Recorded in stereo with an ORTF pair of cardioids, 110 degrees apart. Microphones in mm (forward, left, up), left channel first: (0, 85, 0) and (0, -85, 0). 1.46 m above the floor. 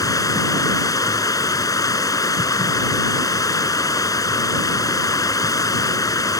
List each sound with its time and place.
0.0 s running water: 20° left